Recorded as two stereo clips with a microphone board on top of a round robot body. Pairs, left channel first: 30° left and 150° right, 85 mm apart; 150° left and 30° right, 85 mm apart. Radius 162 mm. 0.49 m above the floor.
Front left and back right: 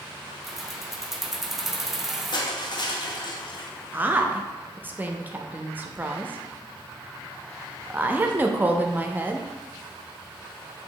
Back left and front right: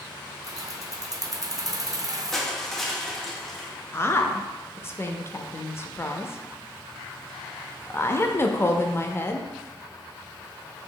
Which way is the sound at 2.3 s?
65° left.